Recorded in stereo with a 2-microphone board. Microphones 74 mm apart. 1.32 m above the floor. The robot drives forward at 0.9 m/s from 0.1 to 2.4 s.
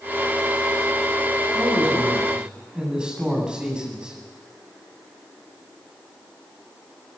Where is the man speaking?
10° right (ahead or behind), 9 m.